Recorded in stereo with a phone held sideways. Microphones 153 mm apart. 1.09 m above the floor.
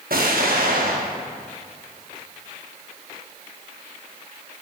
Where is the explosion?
75° right (ahead or behind), 1.0 m.